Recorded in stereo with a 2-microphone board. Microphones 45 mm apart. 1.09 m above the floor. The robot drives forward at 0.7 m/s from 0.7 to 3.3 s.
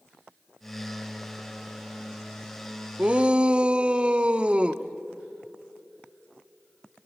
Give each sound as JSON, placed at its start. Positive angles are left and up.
{"t": 3.0, "sound": "a shout", "side_deg": -30, "distance_m": 0.6}